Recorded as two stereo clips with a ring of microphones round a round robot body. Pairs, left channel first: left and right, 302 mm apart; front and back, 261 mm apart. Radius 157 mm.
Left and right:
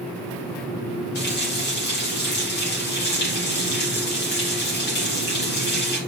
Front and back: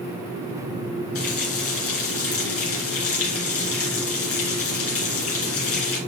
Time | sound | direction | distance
1.1 | a running tap | 35° left | 3 m